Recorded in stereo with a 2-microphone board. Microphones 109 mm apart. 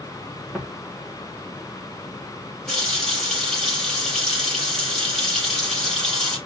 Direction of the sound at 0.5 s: 5° left (ahead or behind).